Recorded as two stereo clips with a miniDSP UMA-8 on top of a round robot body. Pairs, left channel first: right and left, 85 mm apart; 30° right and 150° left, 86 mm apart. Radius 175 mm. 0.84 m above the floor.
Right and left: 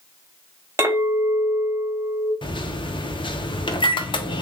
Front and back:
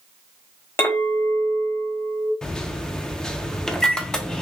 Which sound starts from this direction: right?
A microwave, at 2.4 s.